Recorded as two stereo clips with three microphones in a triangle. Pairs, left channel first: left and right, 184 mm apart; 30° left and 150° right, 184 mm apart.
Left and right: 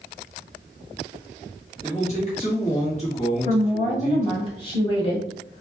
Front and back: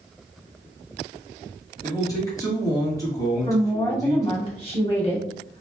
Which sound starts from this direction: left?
A man speaking, at 1.8 s.